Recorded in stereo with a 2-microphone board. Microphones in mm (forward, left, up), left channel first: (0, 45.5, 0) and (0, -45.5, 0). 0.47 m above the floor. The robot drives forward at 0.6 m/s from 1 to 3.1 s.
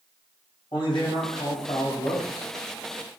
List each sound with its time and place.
0.7 s a man speaking: 55° left (ahead or behind), 2.5 m; by 2.5 s 70° left (ahead or behind), 2.5 m